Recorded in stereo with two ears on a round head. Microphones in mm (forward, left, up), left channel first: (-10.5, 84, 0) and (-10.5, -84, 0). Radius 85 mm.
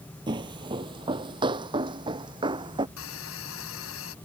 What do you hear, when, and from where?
0.3 s footsteps: 25° right (ahead or behind)
3.0 s a hiss: 80° left